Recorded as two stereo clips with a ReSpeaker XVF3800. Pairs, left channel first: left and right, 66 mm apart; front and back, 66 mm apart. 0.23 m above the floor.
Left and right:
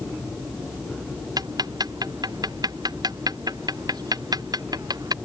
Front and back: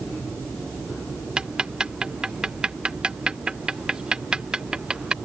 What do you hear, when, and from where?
1.4 s ticking: 100° right